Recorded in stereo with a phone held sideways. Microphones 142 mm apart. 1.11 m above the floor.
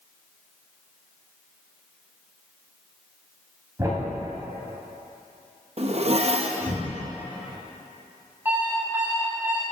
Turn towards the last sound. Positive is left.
turn(degrees=-15)  # may be behind; listen again after turning